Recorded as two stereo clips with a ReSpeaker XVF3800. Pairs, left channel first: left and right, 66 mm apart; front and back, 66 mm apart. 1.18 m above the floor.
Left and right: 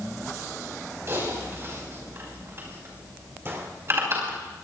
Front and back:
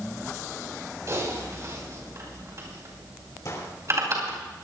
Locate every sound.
1.1 s typing on a keyboard: 140° right, 5.5 m
3.5 s a gunshot: 40° right, 3 m